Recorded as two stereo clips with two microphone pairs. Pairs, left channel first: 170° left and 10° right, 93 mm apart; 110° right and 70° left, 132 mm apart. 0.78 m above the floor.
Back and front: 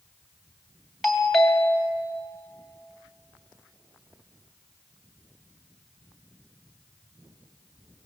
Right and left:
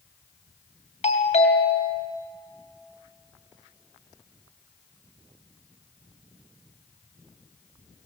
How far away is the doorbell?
About 2.5 m.